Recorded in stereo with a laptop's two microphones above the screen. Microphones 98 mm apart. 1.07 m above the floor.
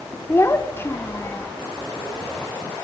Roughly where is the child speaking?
Left.